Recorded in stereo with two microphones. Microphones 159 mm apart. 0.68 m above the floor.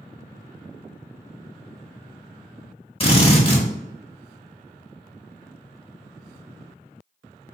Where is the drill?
35° left (ahead or behind), 1.2 m.